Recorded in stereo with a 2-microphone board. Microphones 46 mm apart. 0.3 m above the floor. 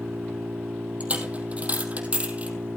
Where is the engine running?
65° right (ahead or behind), 3 m.